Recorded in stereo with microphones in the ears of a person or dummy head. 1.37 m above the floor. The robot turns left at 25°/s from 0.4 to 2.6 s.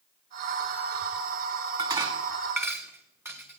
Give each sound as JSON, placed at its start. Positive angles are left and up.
{"t": 1.8, "sound": "dishes clattering", "side_deg": -35, "distance_m": 1.4}